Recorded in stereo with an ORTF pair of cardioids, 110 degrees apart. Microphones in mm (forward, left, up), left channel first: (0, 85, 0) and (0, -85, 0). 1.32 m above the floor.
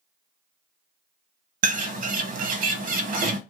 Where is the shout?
No shout in this recording.